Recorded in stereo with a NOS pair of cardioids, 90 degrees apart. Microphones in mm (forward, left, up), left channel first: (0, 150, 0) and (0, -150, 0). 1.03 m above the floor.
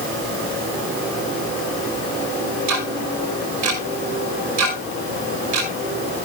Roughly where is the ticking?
Right.